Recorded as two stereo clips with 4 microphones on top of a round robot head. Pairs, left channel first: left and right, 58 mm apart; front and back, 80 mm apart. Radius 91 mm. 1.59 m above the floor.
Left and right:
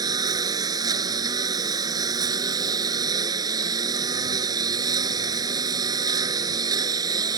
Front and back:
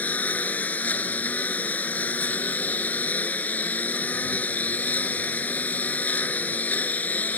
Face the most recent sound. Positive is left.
turn(degrees=-75)